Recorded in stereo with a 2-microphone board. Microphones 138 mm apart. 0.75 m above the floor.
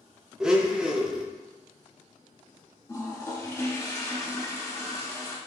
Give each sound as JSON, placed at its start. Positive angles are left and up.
{"t": 0.4, "sound": "a blender", "side_deg": -5, "distance_m": 0.5}
{"t": 2.9, "sound": "a toilet flushing", "side_deg": 20, "distance_m": 0.8}